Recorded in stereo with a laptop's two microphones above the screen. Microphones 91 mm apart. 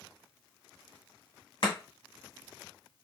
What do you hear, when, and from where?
1.6 s chopping: 60° left (ahead or behind), 1.7 m